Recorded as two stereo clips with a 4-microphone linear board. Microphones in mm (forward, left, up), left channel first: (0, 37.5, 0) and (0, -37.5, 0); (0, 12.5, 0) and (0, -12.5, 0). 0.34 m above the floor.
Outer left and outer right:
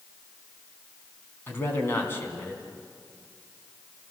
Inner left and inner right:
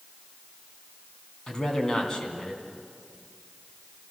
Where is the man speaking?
30° left (ahead or behind), 3.5 m.